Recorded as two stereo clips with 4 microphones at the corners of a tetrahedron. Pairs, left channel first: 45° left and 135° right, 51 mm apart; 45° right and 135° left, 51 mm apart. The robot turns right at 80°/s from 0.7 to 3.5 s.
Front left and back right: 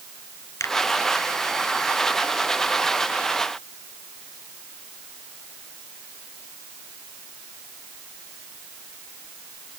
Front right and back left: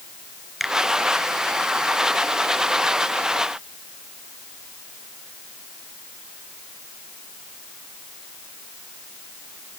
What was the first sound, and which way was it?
A finger snap, 45° left.